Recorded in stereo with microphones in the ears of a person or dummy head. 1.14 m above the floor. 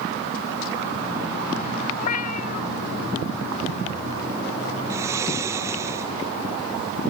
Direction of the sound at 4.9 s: 15° right (ahead or behind).